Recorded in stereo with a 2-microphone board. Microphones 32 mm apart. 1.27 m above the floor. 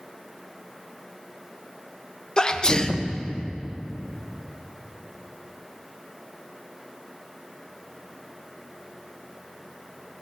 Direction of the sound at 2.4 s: 30° left (ahead or behind).